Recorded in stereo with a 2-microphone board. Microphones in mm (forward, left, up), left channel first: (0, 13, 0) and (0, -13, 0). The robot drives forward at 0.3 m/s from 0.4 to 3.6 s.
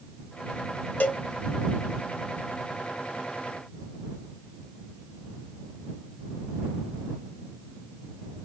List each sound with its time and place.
1.0 s a cowbell: 65° left (ahead or behind), 0.6 m